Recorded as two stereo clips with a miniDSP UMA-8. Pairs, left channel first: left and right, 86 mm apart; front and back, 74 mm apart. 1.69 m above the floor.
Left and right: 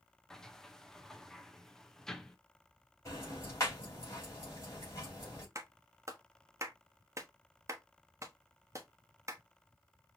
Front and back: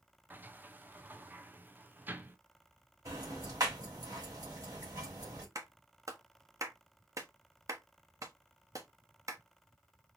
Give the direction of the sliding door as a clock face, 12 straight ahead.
6 o'clock.